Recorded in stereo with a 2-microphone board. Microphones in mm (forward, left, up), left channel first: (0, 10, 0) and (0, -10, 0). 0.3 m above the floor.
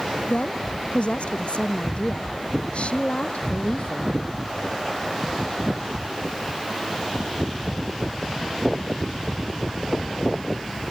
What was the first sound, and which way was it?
A woman speaking, 65° left (ahead or behind).